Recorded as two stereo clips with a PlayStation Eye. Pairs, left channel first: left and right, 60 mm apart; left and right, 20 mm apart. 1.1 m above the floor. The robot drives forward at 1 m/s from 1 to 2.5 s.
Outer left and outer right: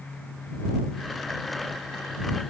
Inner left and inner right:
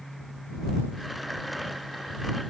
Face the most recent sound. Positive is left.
No sound to turn to.